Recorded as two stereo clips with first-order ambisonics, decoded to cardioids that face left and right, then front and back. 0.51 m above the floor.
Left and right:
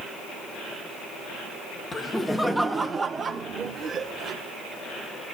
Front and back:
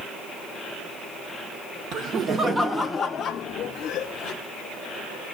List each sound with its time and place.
1.9 s laughter: 165° left, 0.8 m; by 4.3 s 35° right, 1.2 m